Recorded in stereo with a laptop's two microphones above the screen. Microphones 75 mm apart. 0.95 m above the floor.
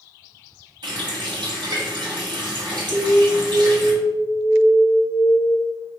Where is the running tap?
80° right, 1.3 m.